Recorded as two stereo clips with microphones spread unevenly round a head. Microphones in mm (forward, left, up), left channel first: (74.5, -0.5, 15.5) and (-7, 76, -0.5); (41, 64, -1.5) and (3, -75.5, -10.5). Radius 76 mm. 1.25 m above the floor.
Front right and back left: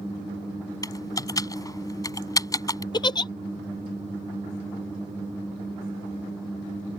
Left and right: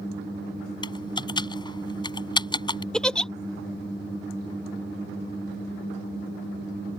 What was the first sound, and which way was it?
Typing on a keyboard, 15° left.